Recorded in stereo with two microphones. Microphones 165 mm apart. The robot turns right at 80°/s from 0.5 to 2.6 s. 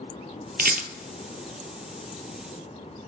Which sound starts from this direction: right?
A rattle, at 0.6 s.